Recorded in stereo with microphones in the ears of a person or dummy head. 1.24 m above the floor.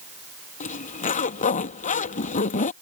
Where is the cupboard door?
No cupboard door in this recording.